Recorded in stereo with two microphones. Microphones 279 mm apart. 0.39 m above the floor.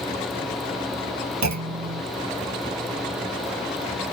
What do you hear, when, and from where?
1.4 s a clunk: 80° right, 0.7 m